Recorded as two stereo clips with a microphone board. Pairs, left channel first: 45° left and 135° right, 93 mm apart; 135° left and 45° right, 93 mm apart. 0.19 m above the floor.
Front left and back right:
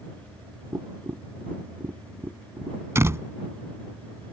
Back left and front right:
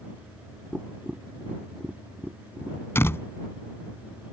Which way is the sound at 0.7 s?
115° right.